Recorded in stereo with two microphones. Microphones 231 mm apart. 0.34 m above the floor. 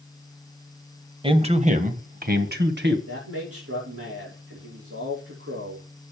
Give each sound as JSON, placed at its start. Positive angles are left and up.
{"t": 1.2, "sound": "a man speaking", "side_deg": -25, "distance_m": 1.3}
{"t": 3.1, "sound": "a man speaking", "side_deg": -80, "distance_m": 7.0}